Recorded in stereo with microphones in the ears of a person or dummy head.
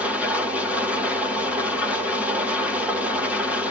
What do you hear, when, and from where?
0.0 s an engine running: 10° right (ahead or behind), 0.8 m